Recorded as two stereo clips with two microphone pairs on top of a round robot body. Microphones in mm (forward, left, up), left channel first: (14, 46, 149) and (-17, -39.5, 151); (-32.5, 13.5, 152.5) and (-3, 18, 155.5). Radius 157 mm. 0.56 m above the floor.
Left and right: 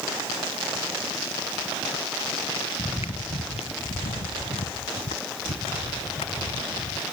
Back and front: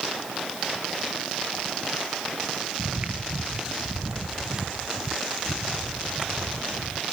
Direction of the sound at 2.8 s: 35° left.